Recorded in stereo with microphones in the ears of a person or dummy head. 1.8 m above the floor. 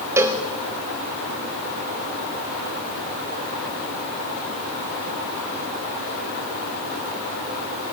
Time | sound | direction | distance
0.2 | a cowbell | 10° right (ahead or behind) | 0.6 m